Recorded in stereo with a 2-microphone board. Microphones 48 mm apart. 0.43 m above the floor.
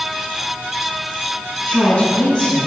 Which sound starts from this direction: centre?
A woman speaking, at 1.7 s.